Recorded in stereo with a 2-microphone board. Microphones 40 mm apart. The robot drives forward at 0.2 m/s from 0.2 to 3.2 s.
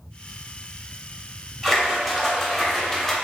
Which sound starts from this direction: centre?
A splash, at 1.6 s.